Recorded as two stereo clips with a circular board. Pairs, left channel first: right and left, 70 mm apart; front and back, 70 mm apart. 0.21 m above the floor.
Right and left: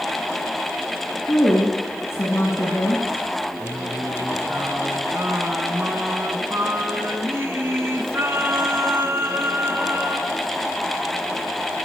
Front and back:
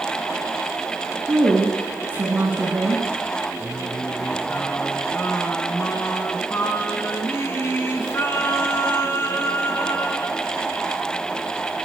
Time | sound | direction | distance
1.3 | a woman speaking | 130° right | 2.0 m
3.6 | singing | 45° left | 1.8 m